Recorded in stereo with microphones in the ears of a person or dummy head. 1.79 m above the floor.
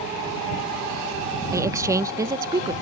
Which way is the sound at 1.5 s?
15° right (ahead or behind).